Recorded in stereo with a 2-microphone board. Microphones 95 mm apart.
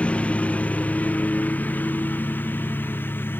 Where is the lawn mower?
15° left (ahead or behind); by 3.4 s 20° left (ahead or behind).